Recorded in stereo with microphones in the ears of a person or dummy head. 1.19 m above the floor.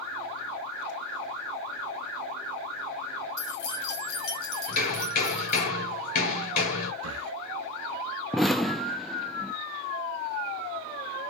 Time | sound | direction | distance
3.4 | keys jangling | 80° left | 1.8 m
4.7 | hammering | 60° left (ahead or behind) | 4.5 m
7.0 | breathing | 70° right (ahead or behind) | 0.7 m
8.3 | an explosion | 5° left (ahead or behind) | 0.7 m